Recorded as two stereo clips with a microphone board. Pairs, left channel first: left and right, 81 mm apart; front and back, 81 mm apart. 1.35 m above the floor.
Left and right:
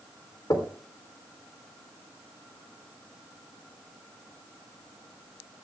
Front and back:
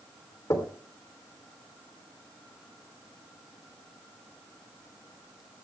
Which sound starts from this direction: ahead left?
Knocking, at 0.5 s.